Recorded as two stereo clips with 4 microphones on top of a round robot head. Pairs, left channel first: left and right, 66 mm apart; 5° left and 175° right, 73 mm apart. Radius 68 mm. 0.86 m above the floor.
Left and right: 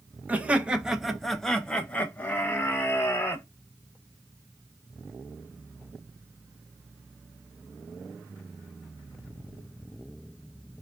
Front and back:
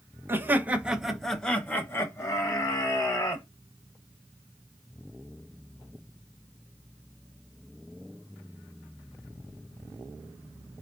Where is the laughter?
140° right, 0.9 m; by 3.4 s 35° left, 1.4 m.